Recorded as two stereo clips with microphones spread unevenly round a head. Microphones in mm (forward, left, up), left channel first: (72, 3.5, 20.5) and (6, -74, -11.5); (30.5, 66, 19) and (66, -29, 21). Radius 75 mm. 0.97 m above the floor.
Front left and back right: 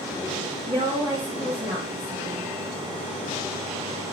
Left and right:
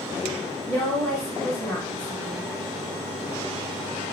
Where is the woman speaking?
175° left, 1.0 m.